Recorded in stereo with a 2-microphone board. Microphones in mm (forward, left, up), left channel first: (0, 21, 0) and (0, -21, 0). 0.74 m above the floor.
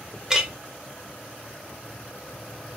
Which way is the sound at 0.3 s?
15° right (ahead or behind).